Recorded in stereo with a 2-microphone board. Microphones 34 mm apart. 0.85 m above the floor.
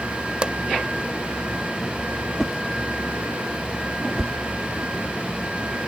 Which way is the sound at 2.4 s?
5° right (ahead or behind).